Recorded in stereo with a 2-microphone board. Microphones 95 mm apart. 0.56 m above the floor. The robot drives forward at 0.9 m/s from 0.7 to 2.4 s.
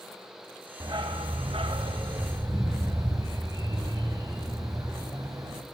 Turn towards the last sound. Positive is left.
turn(degrees=-40)  # may be behind; listen again after turning